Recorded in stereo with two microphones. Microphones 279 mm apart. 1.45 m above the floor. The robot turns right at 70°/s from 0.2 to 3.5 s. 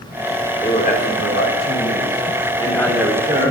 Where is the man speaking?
15° left, 3.5 m; by 3.5 s 140° right, 3.5 m.